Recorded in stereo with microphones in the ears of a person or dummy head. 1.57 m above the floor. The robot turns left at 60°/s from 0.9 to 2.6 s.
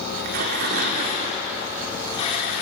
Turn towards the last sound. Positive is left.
turn(degrees=140)